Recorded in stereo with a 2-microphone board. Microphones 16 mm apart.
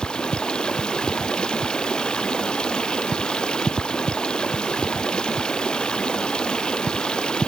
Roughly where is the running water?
Left.